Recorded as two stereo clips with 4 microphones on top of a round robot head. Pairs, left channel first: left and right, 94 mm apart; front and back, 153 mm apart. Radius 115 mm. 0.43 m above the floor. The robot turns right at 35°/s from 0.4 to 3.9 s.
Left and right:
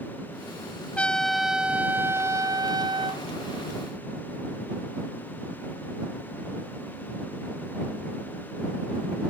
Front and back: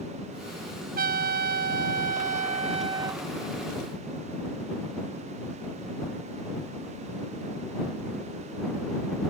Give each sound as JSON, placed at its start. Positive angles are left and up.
{"t": 1.0, "sound": "a trumpet", "azimuth_deg": 170}